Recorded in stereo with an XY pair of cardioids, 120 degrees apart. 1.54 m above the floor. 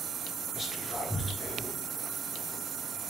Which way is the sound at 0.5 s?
15° left.